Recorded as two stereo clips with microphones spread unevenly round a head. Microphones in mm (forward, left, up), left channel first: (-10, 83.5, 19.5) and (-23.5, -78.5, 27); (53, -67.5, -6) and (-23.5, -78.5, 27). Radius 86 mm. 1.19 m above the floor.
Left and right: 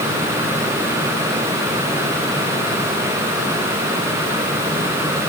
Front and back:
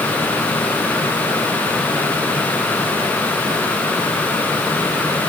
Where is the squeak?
I don't hear a squeak.